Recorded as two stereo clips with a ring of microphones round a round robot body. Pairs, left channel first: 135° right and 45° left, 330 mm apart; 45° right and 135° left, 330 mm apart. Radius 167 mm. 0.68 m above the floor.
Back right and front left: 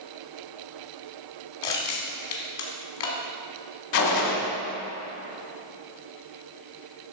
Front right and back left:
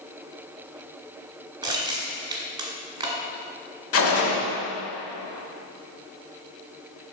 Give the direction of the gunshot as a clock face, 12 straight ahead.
3 o'clock.